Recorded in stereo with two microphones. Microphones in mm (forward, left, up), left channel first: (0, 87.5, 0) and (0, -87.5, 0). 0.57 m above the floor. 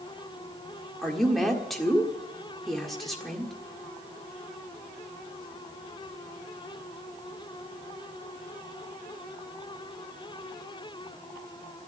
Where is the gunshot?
No gunshot in this recording.